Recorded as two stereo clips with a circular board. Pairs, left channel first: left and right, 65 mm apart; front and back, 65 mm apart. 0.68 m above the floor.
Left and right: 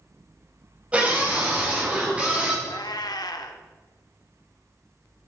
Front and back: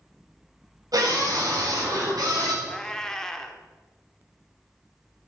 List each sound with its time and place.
0.9 s a scream: 160° right, 4 m
2.6 s a cat meowing: 85° left, 0.6 m